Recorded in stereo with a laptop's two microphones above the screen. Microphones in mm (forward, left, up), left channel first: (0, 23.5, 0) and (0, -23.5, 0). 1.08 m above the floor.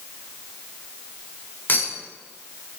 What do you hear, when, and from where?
1.7 s a clink: 40° left (ahead or behind), 3 m